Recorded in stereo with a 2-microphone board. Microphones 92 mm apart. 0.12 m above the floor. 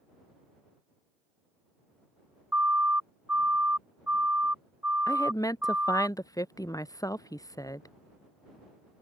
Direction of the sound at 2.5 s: 15° right (ahead or behind).